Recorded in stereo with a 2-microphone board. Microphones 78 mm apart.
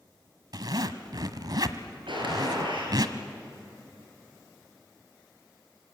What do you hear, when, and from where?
0.5 s a zipper: 60° right (ahead or behind), 1.2 m
2.1 s a gunshot: 85° right, 5.5 m